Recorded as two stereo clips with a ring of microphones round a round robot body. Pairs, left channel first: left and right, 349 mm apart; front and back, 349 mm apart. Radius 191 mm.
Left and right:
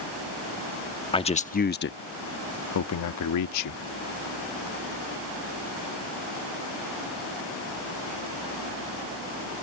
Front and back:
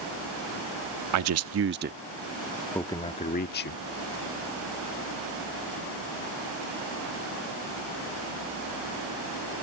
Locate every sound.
1.1 s a man speaking: 160° left; by 3.8 s 55° left